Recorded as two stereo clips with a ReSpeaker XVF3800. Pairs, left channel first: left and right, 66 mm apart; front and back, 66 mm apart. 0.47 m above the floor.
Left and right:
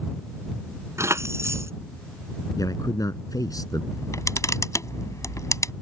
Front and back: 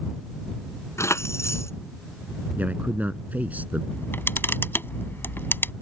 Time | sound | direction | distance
1.0 | keys jangling | 45° right | ?
2.6 | a man speaking | 115° left | ?
3.9 | a camera shutter | 55° left | ?